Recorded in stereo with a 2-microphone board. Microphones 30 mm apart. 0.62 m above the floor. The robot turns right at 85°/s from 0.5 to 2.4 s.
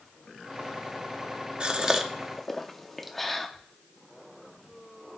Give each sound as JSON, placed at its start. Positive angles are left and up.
{"t": 1.6, "sound": "a gasp", "side_deg": -35, "distance_m": 0.7}